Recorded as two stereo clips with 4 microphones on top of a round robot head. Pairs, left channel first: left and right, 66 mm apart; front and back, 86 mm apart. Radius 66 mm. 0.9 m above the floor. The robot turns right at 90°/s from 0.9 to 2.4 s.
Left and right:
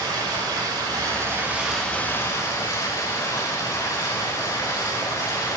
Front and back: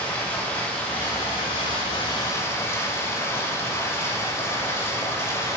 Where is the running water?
75° right, 5.5 m; by 5.6 s 60° left, 5.5 m.